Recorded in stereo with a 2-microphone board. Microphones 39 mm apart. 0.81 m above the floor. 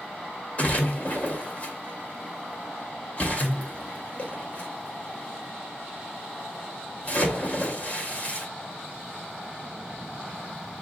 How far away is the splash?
About 1.7 m.